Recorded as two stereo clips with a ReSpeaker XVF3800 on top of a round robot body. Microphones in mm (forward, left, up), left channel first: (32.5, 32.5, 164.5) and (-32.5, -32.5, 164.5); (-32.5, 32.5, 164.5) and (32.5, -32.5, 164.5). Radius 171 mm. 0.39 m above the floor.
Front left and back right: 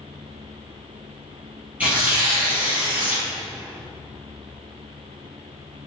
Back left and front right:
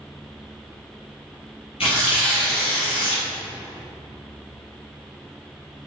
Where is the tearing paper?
150° left, 2.5 m.